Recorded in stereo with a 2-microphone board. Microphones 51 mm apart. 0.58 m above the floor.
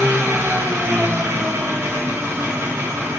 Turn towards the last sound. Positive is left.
turn(degrees=-60)  # may be behind; listen again after turning